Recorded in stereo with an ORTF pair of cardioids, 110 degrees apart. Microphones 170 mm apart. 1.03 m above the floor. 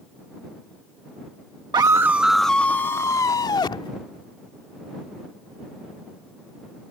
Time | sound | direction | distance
1.7 | a scream | 25° right | ?